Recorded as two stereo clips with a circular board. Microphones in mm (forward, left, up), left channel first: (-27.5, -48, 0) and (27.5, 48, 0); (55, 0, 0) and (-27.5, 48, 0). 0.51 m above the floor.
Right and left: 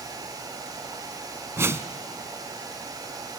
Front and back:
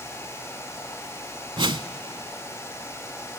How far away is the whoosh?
About 0.7 m.